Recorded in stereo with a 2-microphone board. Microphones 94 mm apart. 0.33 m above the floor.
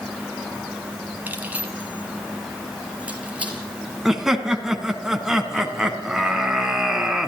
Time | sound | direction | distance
1.3 | keys jangling | 20° right (ahead or behind) | 1.9 m
4.0 | laughter | 5° right (ahead or behind) | 3 m